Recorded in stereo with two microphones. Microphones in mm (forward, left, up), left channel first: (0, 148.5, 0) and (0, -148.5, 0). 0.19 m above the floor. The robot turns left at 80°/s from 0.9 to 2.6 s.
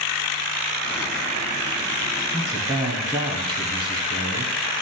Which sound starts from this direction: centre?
A man speaking, at 2.3 s.